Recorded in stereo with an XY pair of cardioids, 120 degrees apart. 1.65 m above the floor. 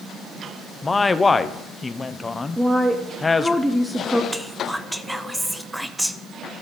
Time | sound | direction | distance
0.8 | a man speaking | 20° left | 0.7 m
2.6 | a woman speaking | straight ahead | 0.8 m
4.3 | whispering | 5° right | 0.7 m